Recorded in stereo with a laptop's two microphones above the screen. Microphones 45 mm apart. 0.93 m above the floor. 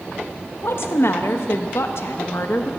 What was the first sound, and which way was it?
A woman speaking, 65° left (ahead or behind).